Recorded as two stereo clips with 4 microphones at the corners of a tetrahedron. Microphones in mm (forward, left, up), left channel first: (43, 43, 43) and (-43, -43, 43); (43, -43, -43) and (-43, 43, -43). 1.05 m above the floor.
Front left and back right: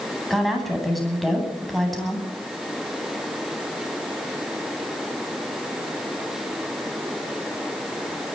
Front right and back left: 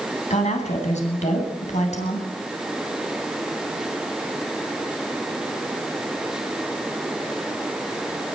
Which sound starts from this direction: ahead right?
A woman speaking, at 0.3 s.